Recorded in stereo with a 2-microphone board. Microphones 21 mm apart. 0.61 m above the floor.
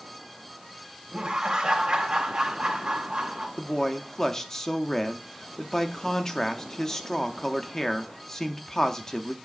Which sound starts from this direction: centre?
A man speaking, at 3.6 s.